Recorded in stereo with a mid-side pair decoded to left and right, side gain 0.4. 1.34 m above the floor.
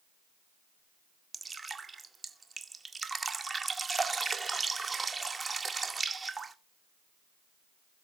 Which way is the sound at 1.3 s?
35° right.